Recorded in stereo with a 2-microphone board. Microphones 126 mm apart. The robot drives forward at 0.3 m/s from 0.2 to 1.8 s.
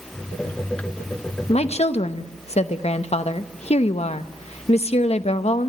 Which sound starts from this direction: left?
A woman speaking, at 1.5 s.